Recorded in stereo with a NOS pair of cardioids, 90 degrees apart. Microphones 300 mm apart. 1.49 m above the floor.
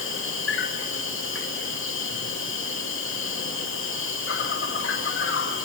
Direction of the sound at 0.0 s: 45° left.